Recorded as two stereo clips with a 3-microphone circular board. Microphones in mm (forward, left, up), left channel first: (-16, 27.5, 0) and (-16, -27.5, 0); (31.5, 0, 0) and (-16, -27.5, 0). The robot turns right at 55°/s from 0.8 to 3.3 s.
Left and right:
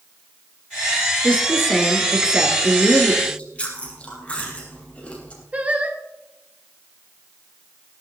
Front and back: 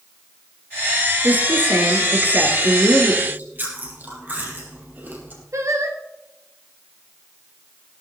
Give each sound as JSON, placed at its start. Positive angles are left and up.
{"t": 1.2, "sound": "a woman speaking", "azimuth_deg": 150, "distance_m": 2.5}
{"t": 3.2, "sound": "chewing", "azimuth_deg": 150, "distance_m": 3.5}
{"t": 5.5, "sound": "singing", "azimuth_deg": -150, "distance_m": 2.0}